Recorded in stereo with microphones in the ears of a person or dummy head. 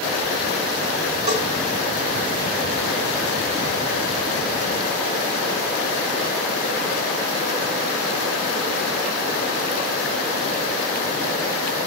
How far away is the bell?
About 5 m.